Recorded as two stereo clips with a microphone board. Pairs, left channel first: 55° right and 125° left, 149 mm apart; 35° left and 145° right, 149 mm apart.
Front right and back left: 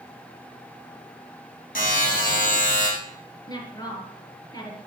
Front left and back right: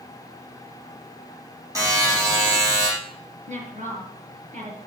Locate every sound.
1.8 s a buzzer: 75° right, 6 m
3.5 s a woman speaking: 120° right, 4 m